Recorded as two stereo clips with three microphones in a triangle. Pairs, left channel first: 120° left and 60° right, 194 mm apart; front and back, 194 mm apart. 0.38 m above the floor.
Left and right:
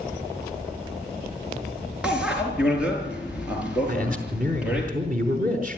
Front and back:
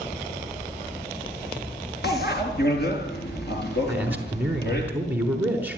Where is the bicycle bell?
25° left, 4.5 m.